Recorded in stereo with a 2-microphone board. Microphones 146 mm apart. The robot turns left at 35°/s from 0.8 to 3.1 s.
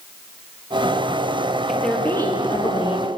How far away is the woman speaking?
About 3 m.